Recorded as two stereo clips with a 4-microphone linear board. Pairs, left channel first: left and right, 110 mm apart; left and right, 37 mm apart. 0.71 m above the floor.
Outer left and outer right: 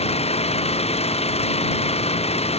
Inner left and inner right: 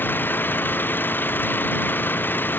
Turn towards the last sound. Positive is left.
turn(degrees=75)  # may be behind; listen again after turning